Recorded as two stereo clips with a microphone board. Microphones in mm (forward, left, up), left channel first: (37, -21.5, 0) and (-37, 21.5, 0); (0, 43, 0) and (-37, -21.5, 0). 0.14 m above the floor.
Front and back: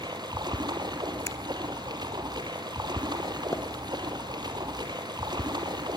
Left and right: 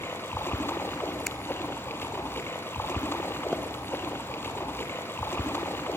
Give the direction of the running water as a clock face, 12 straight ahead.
8 o'clock.